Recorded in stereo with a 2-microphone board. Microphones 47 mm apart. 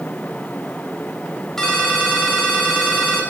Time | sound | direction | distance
1.6 | a ringtone | 5° left (ahead or behind) | 3 m